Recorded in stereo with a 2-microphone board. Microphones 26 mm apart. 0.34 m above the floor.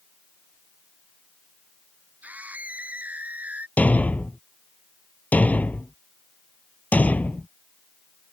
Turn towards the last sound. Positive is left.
turn(degrees=75)  # may be behind; listen again after turning